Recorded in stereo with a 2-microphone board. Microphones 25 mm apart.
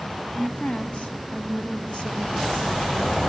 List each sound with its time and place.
0.3 s a woman speaking: 55° left (ahead or behind), 2.5 m; by 3.1 s 40° left (ahead or behind), 3 m